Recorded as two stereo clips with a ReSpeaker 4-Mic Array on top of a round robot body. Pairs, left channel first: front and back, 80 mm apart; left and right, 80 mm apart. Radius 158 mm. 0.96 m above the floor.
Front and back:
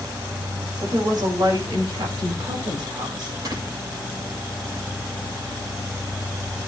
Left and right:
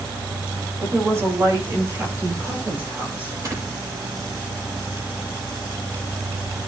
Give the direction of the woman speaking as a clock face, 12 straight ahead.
5 o'clock.